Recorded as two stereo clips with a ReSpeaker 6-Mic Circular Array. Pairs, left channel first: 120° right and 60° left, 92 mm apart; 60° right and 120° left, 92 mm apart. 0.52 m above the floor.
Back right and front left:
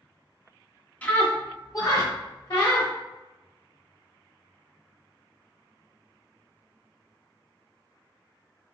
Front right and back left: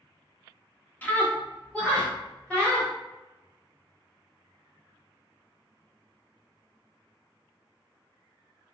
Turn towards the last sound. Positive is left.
turn(degrees=-135)